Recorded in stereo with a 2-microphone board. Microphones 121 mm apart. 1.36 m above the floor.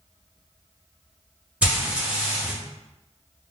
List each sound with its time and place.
1.6 s frying: 10° right (ahead or behind), 1.1 m